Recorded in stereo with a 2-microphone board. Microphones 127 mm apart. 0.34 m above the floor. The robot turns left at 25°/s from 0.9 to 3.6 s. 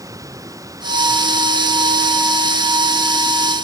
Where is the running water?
155° right; by 3.6 s 140° left.